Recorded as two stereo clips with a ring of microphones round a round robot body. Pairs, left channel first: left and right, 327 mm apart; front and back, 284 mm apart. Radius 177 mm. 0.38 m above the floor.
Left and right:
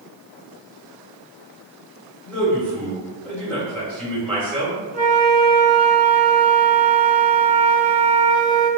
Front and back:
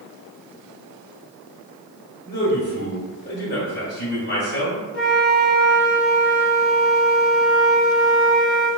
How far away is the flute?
About 0.8 m.